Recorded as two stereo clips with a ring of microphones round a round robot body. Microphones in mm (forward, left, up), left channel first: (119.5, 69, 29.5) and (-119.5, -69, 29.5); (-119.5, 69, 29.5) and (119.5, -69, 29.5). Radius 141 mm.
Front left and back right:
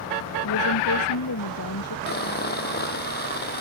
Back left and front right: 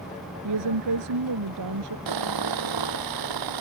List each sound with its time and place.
0.4 s a woman speaking: 5° right
2.1 s sawing: 30° right